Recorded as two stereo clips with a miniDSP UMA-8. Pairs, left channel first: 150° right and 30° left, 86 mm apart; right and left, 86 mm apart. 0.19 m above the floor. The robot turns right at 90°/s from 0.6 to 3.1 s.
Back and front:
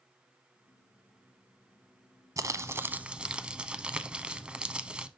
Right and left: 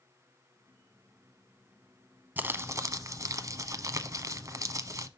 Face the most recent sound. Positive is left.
turn(degrees=100)